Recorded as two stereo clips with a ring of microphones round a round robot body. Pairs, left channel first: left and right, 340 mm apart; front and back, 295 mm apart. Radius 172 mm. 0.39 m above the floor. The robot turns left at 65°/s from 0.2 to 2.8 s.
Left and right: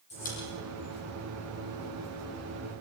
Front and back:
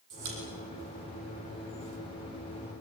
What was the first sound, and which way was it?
A pop, 160° left.